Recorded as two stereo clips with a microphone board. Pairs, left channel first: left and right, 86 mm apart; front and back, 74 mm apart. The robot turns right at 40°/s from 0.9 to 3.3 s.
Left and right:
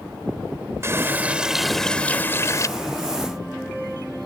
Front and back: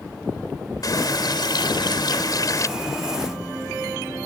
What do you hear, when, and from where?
0.8 s a running tap: 30° right; by 2.7 s 40° left